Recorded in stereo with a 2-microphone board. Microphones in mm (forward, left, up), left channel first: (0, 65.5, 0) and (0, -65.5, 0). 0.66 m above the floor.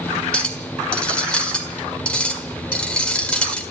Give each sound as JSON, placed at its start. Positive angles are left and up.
{"t": 0.3, "sound": "a clink", "side_deg": 10, "distance_m": 1.6}